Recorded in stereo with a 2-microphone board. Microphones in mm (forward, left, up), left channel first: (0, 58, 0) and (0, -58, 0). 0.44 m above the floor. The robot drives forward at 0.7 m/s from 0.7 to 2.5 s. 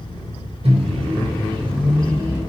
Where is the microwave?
55° right (ahead or behind), 0.9 m; by 2.4 s 30° right (ahead or behind), 1.7 m.